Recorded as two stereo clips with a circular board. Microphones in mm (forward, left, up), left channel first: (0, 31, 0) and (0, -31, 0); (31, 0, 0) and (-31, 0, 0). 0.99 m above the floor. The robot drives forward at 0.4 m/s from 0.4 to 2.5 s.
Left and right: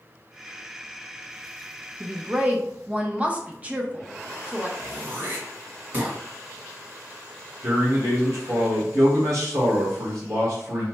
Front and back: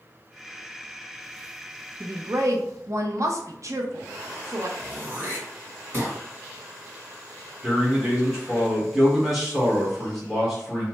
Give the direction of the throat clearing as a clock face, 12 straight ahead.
4 o'clock.